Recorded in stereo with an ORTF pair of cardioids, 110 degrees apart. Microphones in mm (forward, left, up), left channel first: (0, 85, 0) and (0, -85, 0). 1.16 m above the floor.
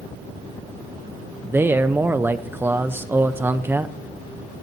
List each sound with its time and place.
1.4 s a man speaking: 15° right, 0.6 m